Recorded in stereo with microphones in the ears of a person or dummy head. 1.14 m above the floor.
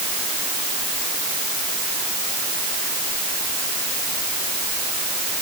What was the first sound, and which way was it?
Only background noise.